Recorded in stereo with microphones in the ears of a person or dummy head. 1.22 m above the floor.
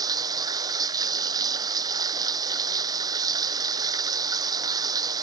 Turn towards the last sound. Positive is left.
turn(degrees=-20)  # may be behind; listen again after turning